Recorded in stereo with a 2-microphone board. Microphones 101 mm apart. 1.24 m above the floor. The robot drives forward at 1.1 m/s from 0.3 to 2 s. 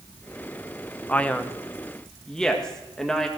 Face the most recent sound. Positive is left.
turn(degrees=5)  # may be behind; listen again after turning